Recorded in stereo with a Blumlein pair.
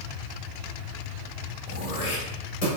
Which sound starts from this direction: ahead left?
Throat clearing, at 1.7 s.